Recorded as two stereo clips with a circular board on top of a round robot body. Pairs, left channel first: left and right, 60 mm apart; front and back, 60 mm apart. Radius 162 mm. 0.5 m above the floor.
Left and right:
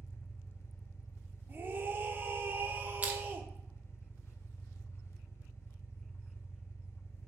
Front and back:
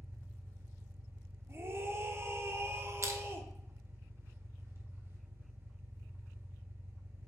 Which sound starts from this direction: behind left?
An engine running, at 0.0 s.